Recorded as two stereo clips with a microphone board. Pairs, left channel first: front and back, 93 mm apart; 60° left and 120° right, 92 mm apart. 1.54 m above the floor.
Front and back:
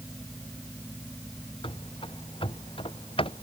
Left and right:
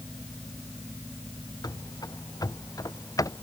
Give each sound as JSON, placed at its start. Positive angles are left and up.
{"t": 1.6, "sound": "running footsteps", "azimuth_deg": 15}